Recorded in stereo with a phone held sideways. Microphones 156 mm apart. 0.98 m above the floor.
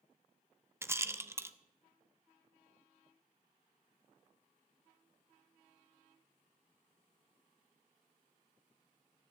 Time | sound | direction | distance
0.8 | a rattle | 15° right (ahead or behind) | 0.6 m